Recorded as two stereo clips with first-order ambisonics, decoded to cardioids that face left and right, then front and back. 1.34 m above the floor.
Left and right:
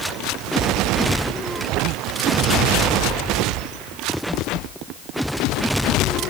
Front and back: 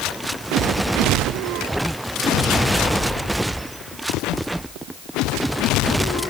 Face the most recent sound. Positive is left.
No sound to turn to.